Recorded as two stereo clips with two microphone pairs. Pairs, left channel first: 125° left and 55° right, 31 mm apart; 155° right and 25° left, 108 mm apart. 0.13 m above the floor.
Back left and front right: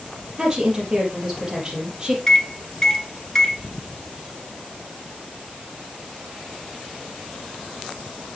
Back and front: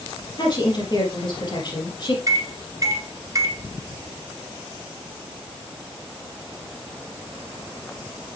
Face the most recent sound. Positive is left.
turn(degrees=60)